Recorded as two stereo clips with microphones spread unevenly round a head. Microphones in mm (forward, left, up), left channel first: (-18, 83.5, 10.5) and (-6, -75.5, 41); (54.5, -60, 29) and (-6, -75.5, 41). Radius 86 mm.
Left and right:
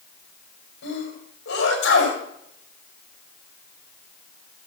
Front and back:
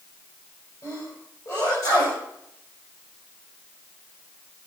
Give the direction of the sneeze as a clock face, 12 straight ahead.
9 o'clock.